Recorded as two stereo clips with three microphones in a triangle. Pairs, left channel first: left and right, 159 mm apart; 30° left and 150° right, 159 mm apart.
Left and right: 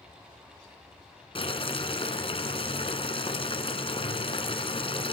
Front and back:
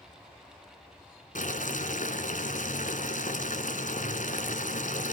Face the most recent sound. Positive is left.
turn(degrees=45)